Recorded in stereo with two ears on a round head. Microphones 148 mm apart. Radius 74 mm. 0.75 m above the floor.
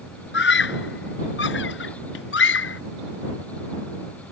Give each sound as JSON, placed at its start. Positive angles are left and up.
{"t": 0.3, "sound": "a scream", "side_deg": 70}